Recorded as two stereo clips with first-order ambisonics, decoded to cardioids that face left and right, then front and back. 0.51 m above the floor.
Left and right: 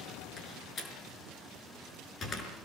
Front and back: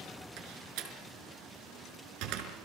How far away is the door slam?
About 5 m.